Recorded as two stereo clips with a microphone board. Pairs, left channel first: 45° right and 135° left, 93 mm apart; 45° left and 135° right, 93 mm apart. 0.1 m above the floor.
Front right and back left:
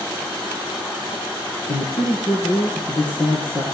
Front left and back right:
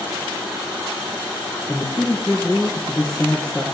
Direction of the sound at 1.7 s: 40° right.